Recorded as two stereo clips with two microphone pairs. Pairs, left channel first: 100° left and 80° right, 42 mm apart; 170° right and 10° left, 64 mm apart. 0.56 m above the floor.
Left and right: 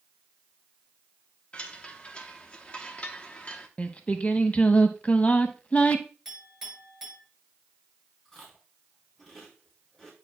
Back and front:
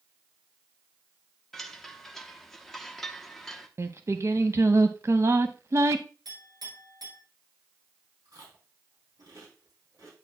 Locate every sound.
1.5 s a chime: 110° left, 0.8 m
3.8 s singing: 45° left, 0.6 m
6.2 s a clink: 15° left, 6.5 m
8.2 s chewing: 20° left, 3 m